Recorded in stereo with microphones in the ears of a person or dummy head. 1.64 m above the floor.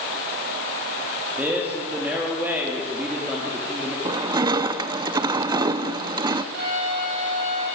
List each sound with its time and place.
1.4 s a man speaking: 5° right (ahead or behind), 3.5 m
4.0 s crushing: 30° right (ahead or behind), 0.7 m
6.5 s a violin: 65° right (ahead or behind), 9.5 m